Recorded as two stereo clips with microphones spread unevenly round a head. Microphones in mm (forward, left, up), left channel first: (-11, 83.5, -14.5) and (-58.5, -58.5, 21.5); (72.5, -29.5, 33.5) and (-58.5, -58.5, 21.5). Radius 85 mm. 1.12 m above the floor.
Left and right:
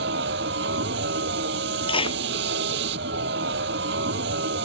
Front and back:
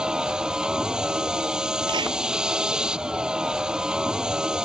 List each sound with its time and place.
0.0 s a vehicle: 85° right
1.9 s a clap: 130° left